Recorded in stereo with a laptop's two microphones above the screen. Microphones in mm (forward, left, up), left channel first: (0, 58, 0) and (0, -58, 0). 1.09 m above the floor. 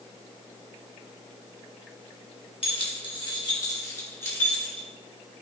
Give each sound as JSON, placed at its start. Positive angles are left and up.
{"t": 2.6, "sound": "keys jangling", "side_deg": 55, "distance_m": 1.4}